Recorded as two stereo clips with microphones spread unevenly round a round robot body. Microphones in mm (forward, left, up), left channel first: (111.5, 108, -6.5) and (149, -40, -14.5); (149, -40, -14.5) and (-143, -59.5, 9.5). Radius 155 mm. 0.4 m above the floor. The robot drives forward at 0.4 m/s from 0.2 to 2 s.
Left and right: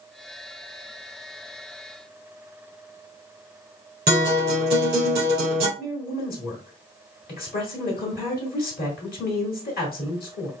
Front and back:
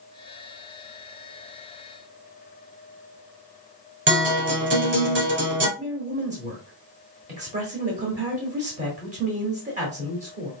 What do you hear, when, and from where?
4.1 s a guitar: 125° right, 3 m
5.8 s a woman speaking: 115° left, 1.3 m